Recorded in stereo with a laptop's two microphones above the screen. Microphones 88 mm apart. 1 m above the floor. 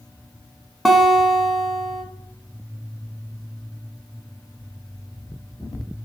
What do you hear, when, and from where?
0.8 s a guitar: centre (ahead or behind), 1.3 m